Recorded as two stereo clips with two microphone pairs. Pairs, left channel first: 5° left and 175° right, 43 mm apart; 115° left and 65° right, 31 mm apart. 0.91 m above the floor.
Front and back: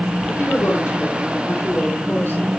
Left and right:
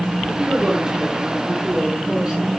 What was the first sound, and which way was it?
A woman speaking, straight ahead.